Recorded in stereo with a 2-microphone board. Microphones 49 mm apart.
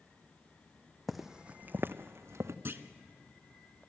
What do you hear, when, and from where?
1.1 s footsteps: 5° left (ahead or behind), 0.6 m; by 2.5 s 65° right (ahead or behind), 1.0 m
2.6 s a clunk: 50° right (ahead or behind), 0.8 m